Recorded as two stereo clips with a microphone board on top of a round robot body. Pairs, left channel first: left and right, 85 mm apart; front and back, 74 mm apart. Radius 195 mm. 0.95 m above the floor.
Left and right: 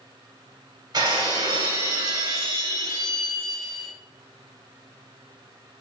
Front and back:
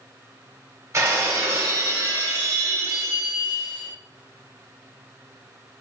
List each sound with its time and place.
0.9 s breaking glass: 130° right, 2.5 m